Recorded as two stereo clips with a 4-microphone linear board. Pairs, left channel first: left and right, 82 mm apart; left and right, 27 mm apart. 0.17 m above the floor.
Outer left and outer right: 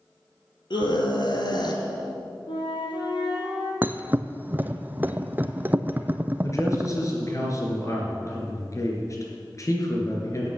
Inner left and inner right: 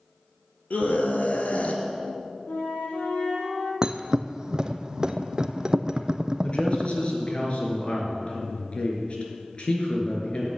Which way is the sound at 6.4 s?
40° left (ahead or behind).